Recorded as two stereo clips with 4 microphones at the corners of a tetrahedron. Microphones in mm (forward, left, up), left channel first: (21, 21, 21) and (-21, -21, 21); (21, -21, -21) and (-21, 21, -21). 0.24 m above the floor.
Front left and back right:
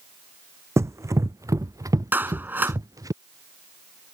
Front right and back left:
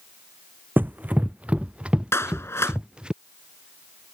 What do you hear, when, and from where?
0.8 s running footsteps: 170° right; by 3.1 s 150° right
2.1 s a clap: 85° right